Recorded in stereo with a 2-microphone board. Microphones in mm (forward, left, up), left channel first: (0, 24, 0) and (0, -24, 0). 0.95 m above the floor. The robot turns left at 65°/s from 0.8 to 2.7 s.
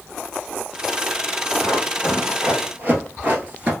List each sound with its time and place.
1.6 s running footsteps: 30° left (ahead or behind), 2.0 m; by 3.7 s 30° right (ahead or behind), 1.0 m